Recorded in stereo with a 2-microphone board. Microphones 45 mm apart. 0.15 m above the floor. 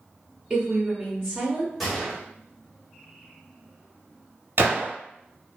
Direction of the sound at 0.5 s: 5° right (ahead or behind).